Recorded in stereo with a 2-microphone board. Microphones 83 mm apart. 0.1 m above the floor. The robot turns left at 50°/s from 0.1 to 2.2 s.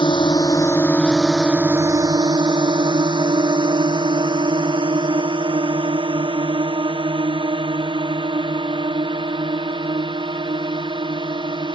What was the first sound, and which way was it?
A drone, 70° left (ahead or behind).